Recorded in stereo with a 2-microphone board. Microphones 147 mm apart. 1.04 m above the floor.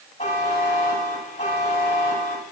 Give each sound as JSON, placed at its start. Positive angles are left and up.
{"t": 0.2, "sound": "a buzzer", "side_deg": 70, "distance_m": 5.5}